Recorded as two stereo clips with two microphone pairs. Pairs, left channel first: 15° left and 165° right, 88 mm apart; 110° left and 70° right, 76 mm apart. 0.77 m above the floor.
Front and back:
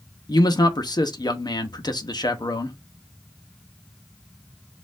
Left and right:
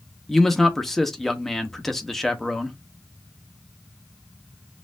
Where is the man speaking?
25° left, 0.7 m.